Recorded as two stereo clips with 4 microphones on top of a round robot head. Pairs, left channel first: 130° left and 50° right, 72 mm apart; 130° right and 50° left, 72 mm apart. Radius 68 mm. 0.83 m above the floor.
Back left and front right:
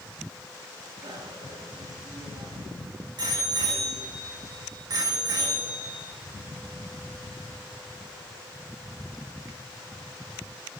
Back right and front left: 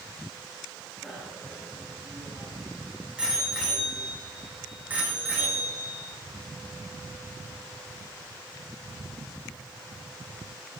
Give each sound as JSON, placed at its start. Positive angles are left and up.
{"t": 1.0, "sound": "a bicycle bell", "azimuth_deg": -35, "distance_m": 8.5}